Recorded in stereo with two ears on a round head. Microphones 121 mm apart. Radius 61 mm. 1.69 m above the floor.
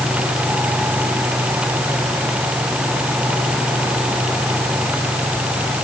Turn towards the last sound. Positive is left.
No sound to turn to.